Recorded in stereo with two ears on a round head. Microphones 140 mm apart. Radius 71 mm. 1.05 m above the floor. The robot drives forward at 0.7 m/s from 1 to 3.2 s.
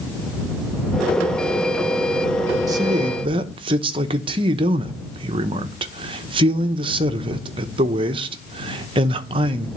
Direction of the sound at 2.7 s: 20° right (ahead or behind).